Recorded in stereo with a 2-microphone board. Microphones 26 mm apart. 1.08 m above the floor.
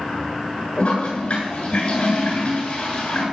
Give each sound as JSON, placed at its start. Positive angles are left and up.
{"t": 0.8, "sound": "a toilet flushing", "side_deg": 40, "distance_m": 9.5}